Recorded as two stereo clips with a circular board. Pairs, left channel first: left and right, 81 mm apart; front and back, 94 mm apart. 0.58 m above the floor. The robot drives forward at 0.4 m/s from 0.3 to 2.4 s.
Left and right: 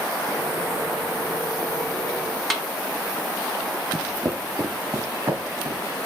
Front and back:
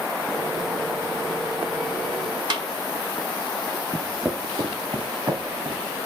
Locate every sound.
2.5 s a snare drum: straight behind, 0.8 m
3.9 s footsteps: 10° right, 0.6 m; by 5.8 s 150° right, 1.9 m